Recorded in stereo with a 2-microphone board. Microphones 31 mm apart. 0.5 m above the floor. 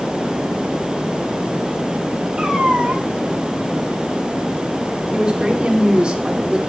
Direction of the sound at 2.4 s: 30° right (ahead or behind).